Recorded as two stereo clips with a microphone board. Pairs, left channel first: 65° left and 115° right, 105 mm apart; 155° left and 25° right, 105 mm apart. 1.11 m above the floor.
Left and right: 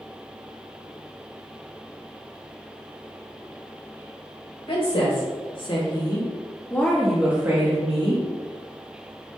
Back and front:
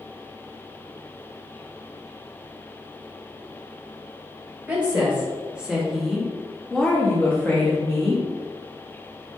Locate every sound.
4.7 s a woman speaking: 55° left, 1.3 m; by 8.2 s 135° right, 0.8 m